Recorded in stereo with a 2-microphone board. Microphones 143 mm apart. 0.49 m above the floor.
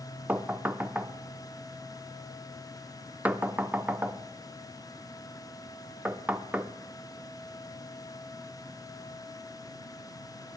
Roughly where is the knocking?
Centre.